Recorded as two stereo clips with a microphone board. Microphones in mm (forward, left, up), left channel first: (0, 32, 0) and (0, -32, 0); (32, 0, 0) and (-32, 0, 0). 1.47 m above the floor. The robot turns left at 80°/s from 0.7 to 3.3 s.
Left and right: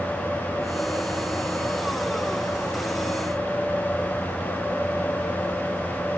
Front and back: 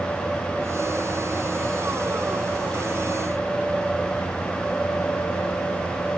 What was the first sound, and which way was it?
Only background noise.